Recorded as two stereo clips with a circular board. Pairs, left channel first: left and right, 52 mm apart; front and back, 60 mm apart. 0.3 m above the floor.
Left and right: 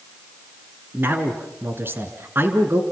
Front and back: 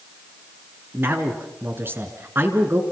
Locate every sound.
0.9 s a man speaking: 130° right, 3.5 m